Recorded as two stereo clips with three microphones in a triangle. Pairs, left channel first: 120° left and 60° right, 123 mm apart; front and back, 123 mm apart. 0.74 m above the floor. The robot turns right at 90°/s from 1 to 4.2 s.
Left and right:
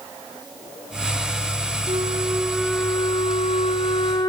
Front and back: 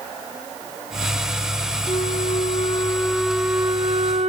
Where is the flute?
35° right, 1.3 m; by 4.3 s 170° left, 1.3 m.